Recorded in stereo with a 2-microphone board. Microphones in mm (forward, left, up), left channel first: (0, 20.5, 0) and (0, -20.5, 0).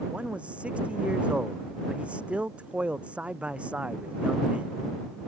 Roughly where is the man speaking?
Right.